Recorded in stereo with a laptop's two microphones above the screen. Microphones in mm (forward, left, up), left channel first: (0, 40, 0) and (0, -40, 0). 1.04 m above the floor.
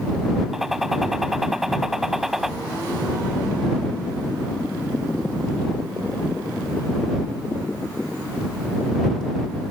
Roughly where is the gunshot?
Centre.